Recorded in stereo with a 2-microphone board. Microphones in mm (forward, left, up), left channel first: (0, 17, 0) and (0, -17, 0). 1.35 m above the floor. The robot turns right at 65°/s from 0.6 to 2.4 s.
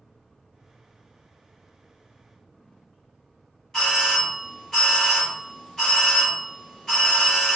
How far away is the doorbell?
About 1.6 m.